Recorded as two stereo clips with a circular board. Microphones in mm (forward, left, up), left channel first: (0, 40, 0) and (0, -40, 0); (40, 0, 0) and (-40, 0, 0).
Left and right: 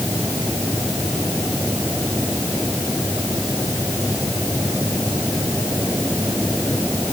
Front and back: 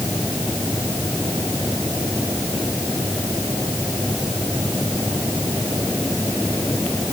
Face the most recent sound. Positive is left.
No sound to turn to.